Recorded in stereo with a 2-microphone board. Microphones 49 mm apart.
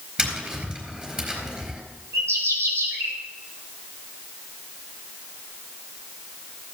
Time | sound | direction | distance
0.2 | tapping | 20° right (ahead or behind) | 4 m
2.1 | a bird | 70° right (ahead or behind) | 3.5 m